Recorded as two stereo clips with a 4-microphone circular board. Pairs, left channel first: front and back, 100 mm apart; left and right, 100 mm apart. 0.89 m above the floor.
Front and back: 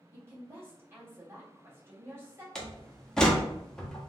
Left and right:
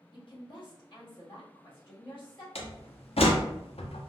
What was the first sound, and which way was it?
A woman speaking, 115° left.